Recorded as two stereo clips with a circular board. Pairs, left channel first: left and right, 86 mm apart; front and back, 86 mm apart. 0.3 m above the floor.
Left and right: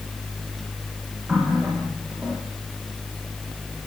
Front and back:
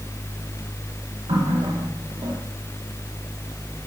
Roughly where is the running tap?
Behind.